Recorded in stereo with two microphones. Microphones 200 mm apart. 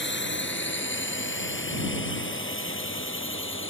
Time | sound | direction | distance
0.0 | a drone | 65° left (ahead or behind) | ?